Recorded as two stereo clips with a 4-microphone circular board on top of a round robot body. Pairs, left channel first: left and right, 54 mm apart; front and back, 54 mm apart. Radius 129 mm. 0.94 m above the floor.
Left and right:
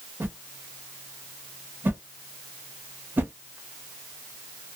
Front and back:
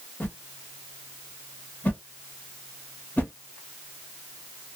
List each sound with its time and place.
0.2 s a whoosh: 50° right, 1.0 m